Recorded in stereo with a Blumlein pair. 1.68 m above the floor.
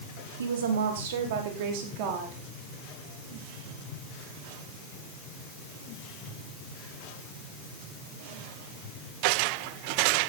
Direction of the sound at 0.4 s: 65° right.